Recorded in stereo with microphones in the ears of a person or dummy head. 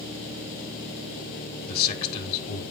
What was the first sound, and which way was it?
A man speaking, 50° left (ahead or behind).